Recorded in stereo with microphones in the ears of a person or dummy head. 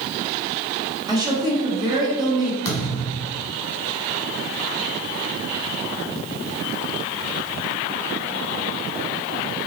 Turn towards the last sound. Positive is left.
turn(degrees=15)  # may be behind; listen again after turning